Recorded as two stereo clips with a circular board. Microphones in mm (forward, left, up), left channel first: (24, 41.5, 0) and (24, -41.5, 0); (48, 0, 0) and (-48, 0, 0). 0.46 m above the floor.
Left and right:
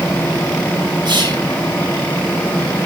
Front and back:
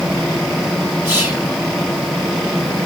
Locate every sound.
1.1 s whispering: 115° right, 3.5 m